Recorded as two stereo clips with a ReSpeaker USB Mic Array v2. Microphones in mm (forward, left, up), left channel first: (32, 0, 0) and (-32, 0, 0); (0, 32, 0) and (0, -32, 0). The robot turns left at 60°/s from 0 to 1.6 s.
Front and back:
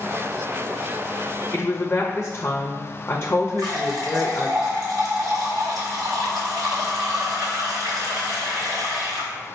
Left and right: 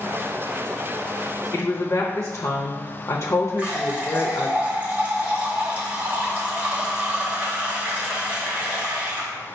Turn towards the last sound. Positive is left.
turn(degrees=-160)